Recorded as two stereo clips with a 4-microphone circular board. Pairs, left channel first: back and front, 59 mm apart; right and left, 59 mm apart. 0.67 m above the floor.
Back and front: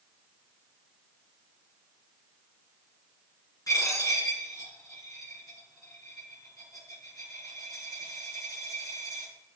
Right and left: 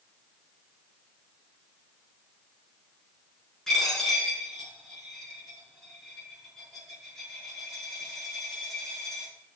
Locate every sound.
3.7 s a dropped coin: 175° right, 4.5 m